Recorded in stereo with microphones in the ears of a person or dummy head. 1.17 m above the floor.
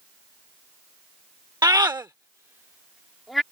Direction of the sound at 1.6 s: 15° right (ahead or behind).